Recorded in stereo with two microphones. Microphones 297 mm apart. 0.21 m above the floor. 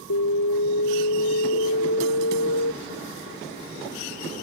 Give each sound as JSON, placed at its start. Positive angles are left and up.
{"t": 0.1, "sound": "an alarm", "side_deg": 70}